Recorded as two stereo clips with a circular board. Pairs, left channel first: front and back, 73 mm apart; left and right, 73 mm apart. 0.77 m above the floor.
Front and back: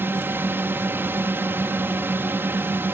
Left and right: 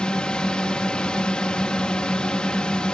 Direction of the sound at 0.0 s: 160° left.